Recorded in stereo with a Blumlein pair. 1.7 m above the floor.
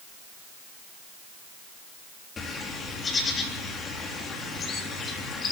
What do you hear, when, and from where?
2.4 s a bird: 20° left, 3.5 m